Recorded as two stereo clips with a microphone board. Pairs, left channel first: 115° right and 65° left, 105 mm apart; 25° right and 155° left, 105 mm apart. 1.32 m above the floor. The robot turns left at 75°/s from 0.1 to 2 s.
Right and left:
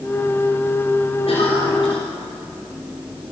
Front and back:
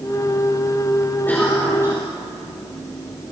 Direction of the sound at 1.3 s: 95° right.